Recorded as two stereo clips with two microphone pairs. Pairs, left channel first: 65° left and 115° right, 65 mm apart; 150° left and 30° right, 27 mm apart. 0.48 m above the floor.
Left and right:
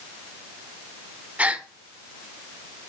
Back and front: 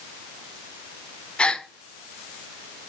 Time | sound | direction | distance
1.4 | a gasp | straight behind | 1.1 m